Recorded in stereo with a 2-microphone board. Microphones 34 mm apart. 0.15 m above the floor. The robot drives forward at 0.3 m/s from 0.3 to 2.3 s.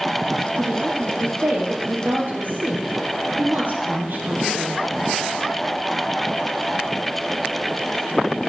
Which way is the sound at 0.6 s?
65° right (ahead or behind).